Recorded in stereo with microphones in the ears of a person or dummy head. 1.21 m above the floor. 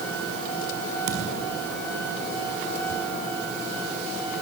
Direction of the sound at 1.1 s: 60° right (ahead or behind).